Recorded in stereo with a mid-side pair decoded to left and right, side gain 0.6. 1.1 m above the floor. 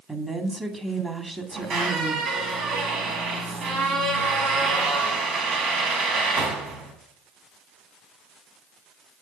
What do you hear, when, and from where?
0.1 s a woman speaking: 15° right, 2.5 m
1.5 s a squeak: 50° right, 5 m